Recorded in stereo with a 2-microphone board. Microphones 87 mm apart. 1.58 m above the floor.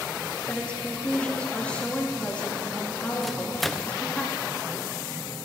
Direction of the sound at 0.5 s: 15° left (ahead or behind).